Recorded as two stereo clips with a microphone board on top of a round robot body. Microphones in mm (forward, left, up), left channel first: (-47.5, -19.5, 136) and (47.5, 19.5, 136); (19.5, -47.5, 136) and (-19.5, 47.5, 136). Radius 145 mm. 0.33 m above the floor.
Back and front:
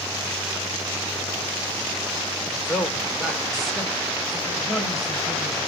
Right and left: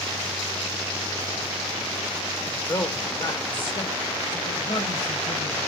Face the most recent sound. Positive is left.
turn(degrees=-70)